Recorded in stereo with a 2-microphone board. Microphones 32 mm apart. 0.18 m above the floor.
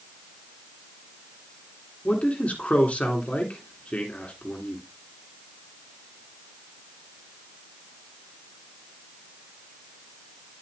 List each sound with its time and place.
2.0 s a man speaking: 45° left (ahead or behind), 2.5 m